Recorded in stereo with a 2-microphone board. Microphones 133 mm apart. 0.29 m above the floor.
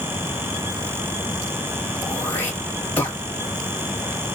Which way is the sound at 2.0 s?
15° left (ahead or behind).